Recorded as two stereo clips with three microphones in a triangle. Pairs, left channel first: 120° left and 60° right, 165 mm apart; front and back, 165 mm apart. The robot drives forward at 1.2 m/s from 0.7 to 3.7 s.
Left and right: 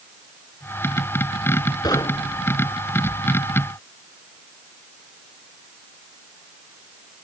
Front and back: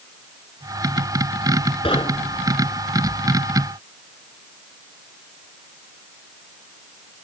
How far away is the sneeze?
I don't hear a sneeze.